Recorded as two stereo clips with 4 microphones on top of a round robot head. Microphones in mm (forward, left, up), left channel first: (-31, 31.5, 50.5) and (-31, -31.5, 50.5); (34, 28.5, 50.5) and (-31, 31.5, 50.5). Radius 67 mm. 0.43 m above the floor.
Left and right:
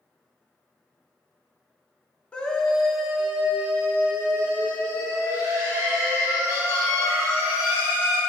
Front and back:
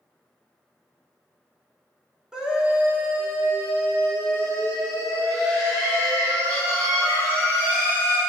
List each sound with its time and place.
2.3 s a scream: 125° left, 1.3 m; by 8.2 s 140° right, 5 m